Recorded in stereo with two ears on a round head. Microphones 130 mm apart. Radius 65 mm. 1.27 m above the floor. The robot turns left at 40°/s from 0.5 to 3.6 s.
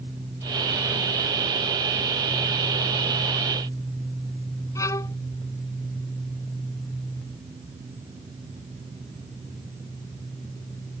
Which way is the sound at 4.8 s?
20° left (ahead or behind).